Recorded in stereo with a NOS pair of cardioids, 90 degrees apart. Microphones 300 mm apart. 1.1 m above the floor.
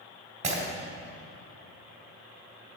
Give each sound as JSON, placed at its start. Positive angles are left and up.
{"t": 0.4, "sound": "breaking glass", "azimuth_deg": -25, "distance_m": 2.5}